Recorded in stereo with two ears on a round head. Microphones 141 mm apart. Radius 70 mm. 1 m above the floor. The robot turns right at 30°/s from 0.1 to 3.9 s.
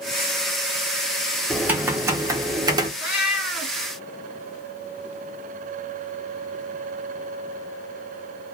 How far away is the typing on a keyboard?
About 0.6 m.